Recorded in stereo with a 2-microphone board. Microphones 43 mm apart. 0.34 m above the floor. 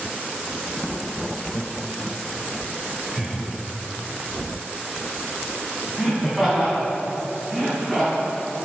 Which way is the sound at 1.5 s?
10° right (ahead or behind).